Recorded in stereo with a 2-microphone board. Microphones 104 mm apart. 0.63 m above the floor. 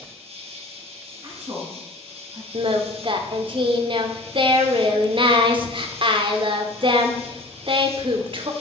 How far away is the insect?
About 3 m.